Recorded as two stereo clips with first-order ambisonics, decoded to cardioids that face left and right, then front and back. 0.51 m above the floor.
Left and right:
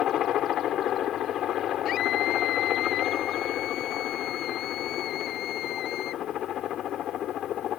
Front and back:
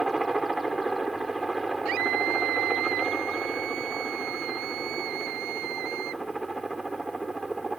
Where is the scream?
140° left.